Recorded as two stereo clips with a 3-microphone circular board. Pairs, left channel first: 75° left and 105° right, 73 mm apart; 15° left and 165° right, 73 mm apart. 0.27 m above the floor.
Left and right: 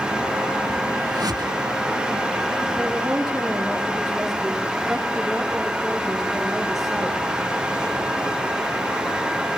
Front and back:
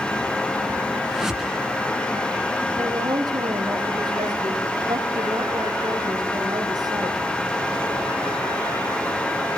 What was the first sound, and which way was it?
A whoosh, 80° right.